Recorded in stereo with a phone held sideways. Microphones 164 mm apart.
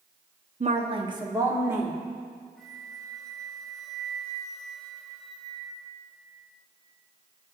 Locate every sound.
0.6 s a woman speaking: 45° right (ahead or behind), 0.9 m; by 2.0 s 10° right (ahead or behind), 2 m
2.6 s a flute: centre (ahead or behind), 3 m